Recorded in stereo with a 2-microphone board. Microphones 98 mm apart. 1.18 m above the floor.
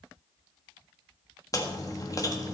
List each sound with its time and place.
1.5 s chewing: 35° left (ahead or behind), 1.7 m